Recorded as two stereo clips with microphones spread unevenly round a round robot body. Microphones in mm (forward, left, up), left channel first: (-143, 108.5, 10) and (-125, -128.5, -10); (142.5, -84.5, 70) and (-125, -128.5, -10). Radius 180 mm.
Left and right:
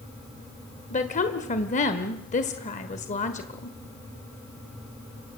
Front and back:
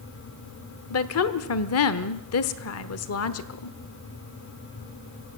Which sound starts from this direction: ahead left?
A woman speaking, at 0.9 s.